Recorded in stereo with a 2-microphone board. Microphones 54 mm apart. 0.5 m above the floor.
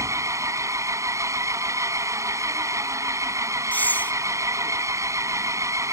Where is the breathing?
35° left (ahead or behind).